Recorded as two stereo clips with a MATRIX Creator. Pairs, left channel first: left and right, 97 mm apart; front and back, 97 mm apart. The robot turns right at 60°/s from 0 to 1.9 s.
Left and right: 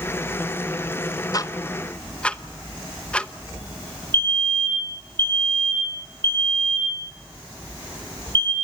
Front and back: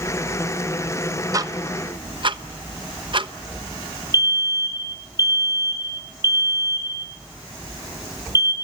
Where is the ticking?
135° left, 0.9 m; by 3.3 s 165° left, 0.9 m.